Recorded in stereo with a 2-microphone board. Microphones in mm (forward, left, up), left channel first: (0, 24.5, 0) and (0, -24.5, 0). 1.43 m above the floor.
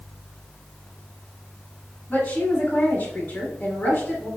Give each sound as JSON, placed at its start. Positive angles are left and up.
{"t": 2.1, "sound": "a woman speaking", "side_deg": 30, "distance_m": 1.8}